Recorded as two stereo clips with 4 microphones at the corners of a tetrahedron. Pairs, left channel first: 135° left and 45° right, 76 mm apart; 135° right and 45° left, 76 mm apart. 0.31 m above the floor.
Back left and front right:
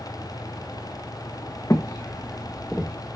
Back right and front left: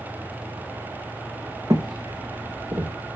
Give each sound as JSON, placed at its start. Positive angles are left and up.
{"t": 1.7, "sound": "footsteps", "azimuth_deg": 85, "distance_m": 1.2}